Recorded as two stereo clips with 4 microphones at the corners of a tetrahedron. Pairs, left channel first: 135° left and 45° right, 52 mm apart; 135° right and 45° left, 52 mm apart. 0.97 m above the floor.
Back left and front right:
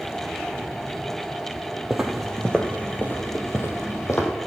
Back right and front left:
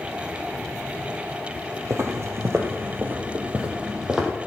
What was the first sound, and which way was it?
Footsteps, 35° left.